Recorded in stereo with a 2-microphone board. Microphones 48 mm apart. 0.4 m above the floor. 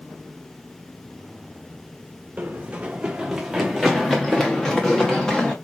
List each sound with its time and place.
2.4 s running footsteps: 35° right (ahead or behind), 1.0 m; by 5.5 s 15° left (ahead or behind), 2 m